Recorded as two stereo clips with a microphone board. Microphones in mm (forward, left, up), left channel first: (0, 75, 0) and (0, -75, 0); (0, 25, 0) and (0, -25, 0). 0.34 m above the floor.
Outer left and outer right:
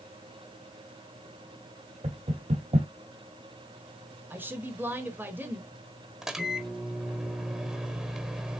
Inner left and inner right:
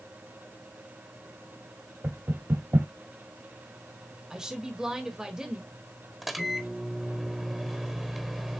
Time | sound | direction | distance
2.0 | knocking | 45° right (ahead or behind) | 1.8 m
4.3 | a woman speaking | 15° right (ahead or behind) | 1.4 m
6.2 | a microwave | centre (ahead or behind) | 0.9 m